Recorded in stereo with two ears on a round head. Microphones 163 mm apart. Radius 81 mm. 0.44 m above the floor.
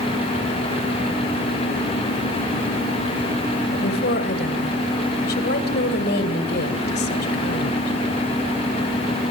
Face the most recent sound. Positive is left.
turn(degrees=60)  # may be behind; listen again after turning